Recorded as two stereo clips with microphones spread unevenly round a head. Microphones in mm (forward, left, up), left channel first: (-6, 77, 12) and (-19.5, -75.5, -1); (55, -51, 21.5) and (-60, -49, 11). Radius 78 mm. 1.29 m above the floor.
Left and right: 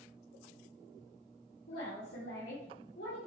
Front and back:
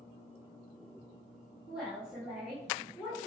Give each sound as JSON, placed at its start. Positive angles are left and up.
{"t": 1.7, "sound": "a woman speaking", "azimuth_deg": 95, "distance_m": 2.0}